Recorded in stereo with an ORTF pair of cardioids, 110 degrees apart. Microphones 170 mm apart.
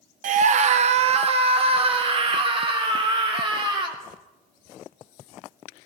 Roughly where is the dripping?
No dripping in this recording.